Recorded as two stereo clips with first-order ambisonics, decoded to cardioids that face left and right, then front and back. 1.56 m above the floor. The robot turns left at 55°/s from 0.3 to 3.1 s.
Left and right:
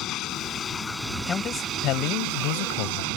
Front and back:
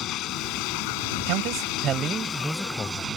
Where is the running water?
45° left; by 3.2 s 110° right.